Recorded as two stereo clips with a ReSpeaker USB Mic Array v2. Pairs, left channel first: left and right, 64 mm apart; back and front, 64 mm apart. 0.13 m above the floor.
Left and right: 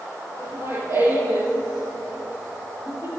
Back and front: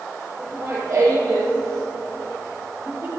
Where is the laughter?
40° right, 5 m.